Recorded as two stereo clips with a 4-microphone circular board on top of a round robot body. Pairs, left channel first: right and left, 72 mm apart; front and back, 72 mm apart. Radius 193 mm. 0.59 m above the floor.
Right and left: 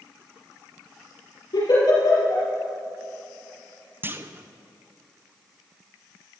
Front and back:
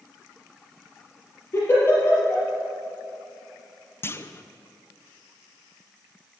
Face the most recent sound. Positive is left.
turn(degrees=40)